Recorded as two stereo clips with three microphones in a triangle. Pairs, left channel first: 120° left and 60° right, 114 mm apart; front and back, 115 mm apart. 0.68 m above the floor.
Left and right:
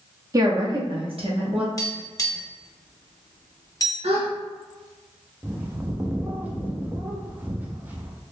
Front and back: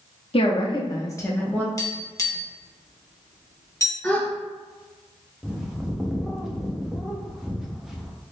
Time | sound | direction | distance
0.3 | a woman speaking | 10° right | 0.8 m
1.8 | tapping | 60° left | 0.8 m
4.0 | a gasp | 80° right | 0.7 m
5.4 | a bird | 100° right | 0.5 m